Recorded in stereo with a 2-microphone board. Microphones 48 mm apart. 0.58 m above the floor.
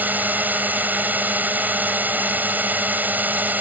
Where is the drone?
40° right (ahead or behind).